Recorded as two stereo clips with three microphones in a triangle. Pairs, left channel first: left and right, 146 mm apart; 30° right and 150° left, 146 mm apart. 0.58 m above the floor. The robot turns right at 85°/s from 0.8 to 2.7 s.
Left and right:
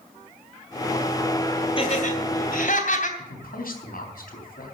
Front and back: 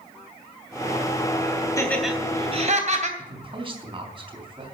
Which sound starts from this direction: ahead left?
Laughter, at 1.8 s.